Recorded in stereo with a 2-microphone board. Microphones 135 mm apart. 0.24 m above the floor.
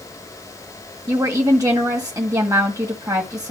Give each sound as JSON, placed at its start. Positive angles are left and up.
{"t": 1.1, "sound": "a woman speaking", "side_deg": -25, "distance_m": 1.6}